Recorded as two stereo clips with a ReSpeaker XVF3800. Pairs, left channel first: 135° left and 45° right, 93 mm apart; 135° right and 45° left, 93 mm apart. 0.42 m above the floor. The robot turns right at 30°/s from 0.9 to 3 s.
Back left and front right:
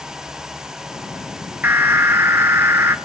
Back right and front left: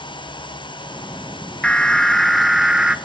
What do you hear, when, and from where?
1.6 s an alarm: 70° right, 0.7 m; by 3.0 s 30° right, 0.7 m